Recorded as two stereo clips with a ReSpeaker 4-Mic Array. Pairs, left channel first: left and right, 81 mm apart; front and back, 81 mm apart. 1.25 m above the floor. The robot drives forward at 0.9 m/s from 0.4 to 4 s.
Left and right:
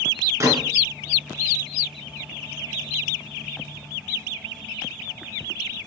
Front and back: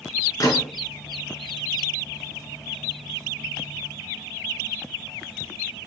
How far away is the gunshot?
About 3 m.